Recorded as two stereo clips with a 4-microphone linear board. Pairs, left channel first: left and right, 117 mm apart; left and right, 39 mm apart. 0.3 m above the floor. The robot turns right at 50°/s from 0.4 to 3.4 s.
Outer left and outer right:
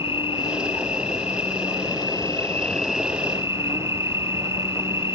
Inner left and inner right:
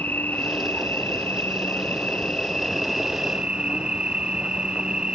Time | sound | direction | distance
0.0 | an insect | 55° left | ?